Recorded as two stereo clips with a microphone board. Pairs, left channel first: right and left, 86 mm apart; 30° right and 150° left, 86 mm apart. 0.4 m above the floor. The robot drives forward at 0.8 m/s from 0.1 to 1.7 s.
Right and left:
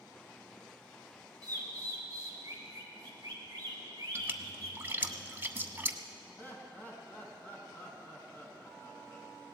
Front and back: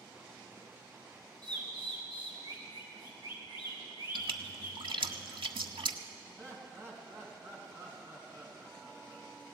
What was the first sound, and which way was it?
A bird, 130° left.